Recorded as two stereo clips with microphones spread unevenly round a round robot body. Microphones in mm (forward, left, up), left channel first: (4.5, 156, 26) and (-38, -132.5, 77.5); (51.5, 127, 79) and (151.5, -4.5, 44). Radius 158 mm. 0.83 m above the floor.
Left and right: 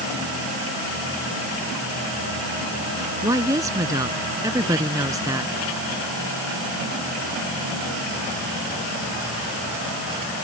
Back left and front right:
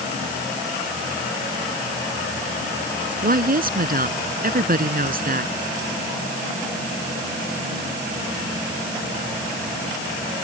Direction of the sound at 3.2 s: 20° right.